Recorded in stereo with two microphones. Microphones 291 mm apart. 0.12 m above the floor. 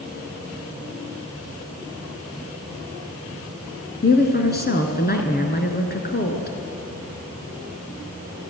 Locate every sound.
4.0 s a woman speaking: 35° left (ahead or behind), 1.8 m